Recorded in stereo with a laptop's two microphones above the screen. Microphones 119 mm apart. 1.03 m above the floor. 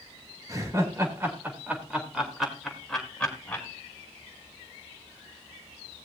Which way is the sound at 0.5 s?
30° right (ahead or behind).